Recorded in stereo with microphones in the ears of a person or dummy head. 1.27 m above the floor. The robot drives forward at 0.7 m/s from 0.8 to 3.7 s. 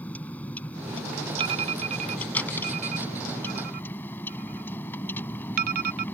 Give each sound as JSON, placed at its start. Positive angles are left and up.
{"t": 0.0, "sound": "a vehicle", "side_deg": 10}
{"t": 1.4, "sound": "an alarm", "side_deg": -35}